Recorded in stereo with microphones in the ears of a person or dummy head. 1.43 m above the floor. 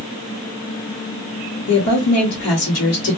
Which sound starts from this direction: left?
A woman speaking, at 1.7 s.